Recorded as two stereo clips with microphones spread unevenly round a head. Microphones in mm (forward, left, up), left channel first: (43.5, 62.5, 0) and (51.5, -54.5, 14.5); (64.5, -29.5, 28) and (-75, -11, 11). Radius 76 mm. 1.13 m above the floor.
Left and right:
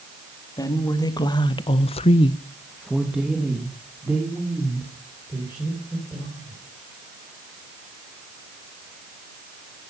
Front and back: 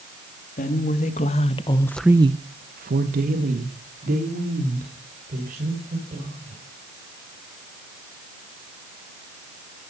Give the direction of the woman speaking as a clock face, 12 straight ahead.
11 o'clock.